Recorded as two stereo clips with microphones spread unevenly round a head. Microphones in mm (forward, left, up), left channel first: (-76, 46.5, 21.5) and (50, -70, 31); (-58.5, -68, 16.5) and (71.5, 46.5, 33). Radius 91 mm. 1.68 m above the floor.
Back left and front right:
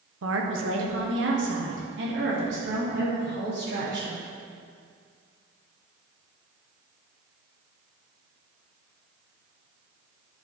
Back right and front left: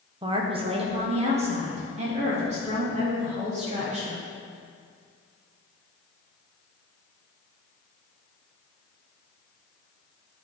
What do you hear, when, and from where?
0.2 s a woman speaking: 20° right, 1.1 m; by 4.2 s 10° right, 4.5 m